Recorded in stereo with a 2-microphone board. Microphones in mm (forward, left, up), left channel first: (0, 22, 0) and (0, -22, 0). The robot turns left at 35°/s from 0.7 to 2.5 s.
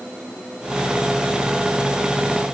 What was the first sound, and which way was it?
Only background noise.